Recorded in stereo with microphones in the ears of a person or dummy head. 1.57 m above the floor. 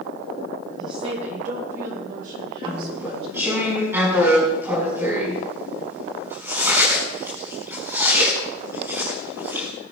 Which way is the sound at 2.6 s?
20° right (ahead or behind).